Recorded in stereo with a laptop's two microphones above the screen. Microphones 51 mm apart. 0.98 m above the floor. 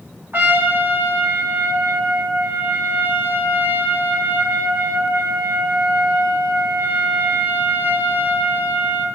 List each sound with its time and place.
0.3 s a trumpet: 40° right (ahead or behind), 0.9 m